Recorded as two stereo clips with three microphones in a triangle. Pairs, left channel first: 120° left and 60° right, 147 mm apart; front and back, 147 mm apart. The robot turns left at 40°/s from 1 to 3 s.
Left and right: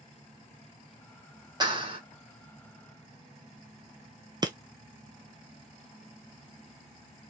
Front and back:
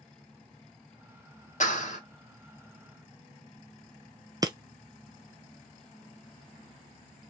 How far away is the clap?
About 2 m.